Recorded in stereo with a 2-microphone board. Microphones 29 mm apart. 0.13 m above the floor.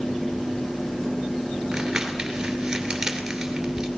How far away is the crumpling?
About 2.5 m.